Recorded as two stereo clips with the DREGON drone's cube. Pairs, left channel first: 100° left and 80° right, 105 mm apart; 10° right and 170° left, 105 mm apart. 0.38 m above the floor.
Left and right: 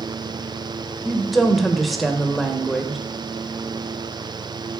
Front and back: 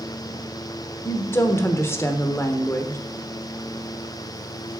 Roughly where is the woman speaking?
Ahead.